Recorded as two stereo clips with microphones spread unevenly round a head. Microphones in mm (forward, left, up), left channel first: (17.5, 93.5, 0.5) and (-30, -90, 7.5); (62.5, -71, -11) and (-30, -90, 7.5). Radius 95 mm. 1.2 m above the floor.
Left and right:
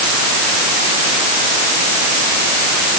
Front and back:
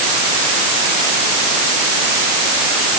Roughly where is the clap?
No clap in this recording.